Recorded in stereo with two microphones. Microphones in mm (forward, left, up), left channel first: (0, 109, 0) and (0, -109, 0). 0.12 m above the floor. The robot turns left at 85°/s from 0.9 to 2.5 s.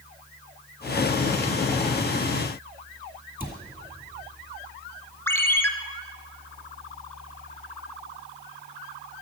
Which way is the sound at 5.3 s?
10° left (ahead or behind).